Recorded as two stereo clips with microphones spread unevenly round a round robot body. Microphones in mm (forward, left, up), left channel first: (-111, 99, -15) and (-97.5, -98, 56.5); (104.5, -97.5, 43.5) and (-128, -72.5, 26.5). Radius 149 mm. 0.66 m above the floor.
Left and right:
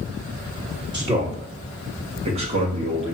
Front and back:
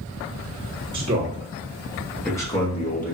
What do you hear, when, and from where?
0.9 s a man speaking: 170° right, 1.5 m; by 3.1 s 15° right, 1.3 m